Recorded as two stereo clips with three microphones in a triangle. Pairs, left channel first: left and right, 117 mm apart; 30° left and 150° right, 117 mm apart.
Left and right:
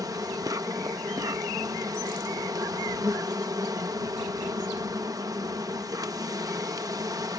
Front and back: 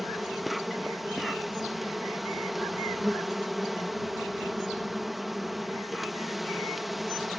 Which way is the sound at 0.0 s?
60° right.